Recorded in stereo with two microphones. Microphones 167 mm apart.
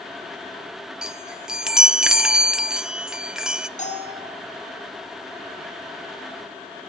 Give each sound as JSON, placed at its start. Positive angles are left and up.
{"t": 1.0, "sound": "a chime", "side_deg": -5, "distance_m": 0.8}
{"t": 3.8, "sound": "a bell", "side_deg": 45, "distance_m": 7.0}